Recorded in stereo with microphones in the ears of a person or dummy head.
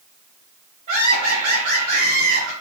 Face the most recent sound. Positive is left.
turn(degrees=-50)  # may be behind; listen again after turning